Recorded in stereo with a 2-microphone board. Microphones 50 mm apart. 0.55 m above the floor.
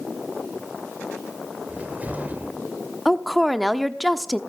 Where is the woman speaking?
Centre (ahead or behind), 0.8 m.